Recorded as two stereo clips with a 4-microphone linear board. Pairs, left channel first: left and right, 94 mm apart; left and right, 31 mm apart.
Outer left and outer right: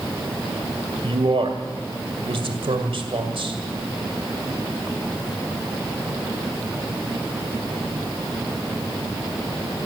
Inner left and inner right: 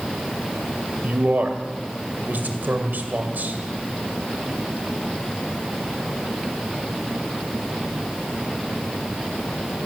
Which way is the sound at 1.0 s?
75° right (ahead or behind).